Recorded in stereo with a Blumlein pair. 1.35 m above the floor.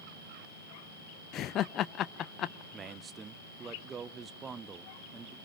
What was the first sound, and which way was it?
Laughter, 30° left.